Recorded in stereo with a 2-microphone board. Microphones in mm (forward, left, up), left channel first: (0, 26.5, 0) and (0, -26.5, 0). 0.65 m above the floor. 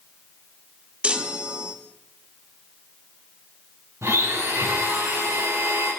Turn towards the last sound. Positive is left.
turn(degrees=-60)  # may be behind; listen again after turning